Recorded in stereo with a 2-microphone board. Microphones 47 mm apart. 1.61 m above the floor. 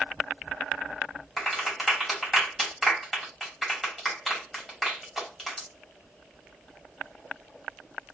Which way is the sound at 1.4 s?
5° left (ahead or behind).